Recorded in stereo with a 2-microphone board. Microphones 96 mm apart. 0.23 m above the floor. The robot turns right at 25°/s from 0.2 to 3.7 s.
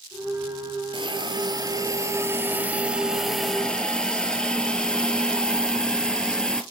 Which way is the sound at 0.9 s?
60° right.